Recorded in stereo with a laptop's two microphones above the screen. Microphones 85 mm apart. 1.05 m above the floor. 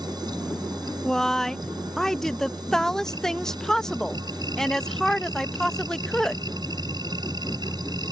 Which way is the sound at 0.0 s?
55° right (ahead or behind).